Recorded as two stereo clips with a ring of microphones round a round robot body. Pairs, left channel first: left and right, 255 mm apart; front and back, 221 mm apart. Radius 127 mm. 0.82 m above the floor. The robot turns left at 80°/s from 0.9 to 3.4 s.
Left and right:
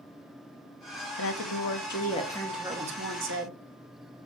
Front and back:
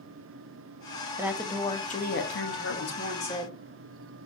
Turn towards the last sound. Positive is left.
turn(degrees=-70)